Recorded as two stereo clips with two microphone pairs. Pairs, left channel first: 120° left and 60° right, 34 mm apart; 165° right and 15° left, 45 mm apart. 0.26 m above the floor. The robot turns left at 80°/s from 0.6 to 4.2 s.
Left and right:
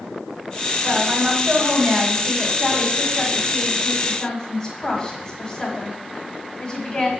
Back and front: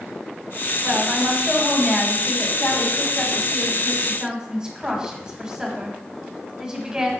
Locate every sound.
0.8 s a woman speaking: 10° right, 1.7 m; by 7.1 s 80° left, 1.7 m